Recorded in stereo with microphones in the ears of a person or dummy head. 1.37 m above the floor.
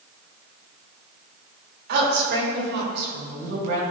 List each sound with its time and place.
1.9 s a woman speaking: 65° right (ahead or behind), 3.5 m; by 3.8 s 70° right (ahead or behind), 6 m